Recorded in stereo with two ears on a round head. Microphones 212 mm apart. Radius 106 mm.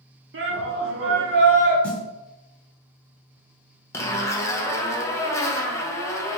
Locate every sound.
0.3 s a shout: 50° right (ahead or behind), 0.7 m
1.8 s a snare drum: 5° left (ahead or behind), 0.8 m
3.9 s a zipper: 10° left (ahead or behind), 0.5 m